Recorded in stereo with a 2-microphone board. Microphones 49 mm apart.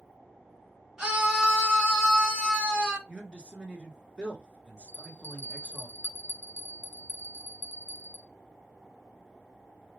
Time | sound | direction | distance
1.0 | a scream | 15° right (ahead or behind) | 1.8 m
3.1 | a man speaking | 20° right (ahead or behind) | 1.1 m
4.9 | a bell | 45° left (ahead or behind) | 0.8 m